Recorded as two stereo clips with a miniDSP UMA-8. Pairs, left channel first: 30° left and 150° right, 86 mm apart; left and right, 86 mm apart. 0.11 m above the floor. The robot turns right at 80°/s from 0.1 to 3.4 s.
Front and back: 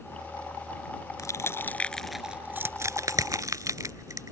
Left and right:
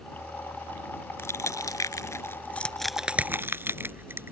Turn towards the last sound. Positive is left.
turn(degrees=-135)